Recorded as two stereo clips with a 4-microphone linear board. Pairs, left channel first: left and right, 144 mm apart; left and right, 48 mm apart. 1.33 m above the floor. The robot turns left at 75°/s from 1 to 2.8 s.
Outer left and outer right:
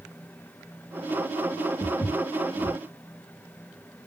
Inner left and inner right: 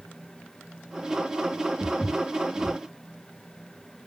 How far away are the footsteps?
About 1.7 m.